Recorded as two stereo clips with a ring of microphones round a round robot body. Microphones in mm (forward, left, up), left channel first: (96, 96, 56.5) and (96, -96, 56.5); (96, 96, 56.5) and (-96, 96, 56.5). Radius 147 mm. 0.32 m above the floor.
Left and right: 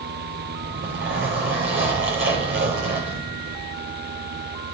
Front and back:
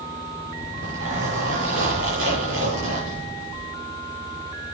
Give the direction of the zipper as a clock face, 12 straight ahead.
5 o'clock.